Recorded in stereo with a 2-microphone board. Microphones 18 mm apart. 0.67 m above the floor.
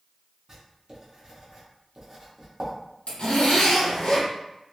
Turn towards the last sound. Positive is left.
turn(degrees=80)